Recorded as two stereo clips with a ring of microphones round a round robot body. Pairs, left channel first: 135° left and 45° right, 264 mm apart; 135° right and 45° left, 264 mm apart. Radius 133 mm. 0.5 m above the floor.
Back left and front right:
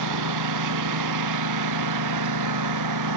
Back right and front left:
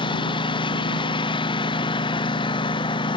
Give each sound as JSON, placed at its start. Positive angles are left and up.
{"t": 0.0, "sound": "a lawn mower", "azimuth_deg": -60}